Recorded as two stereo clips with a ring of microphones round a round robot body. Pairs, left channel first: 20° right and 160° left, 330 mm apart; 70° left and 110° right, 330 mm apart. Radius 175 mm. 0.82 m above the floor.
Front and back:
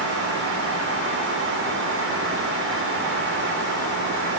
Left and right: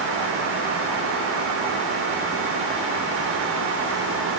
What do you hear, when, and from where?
Only background noise.